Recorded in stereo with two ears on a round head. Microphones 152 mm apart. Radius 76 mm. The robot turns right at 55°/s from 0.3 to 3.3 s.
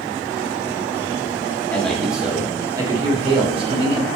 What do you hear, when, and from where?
1.7 s a man speaking: 165° left, 1.5 m; by 4.1 s 110° right, 1.5 m